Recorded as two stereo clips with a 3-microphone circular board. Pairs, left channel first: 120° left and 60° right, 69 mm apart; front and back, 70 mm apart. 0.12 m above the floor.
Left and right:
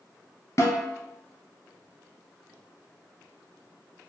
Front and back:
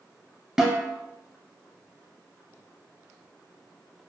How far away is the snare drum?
About 0.9 m.